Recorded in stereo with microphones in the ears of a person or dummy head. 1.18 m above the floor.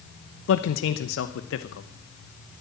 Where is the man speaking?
70° left (ahead or behind), 0.9 m.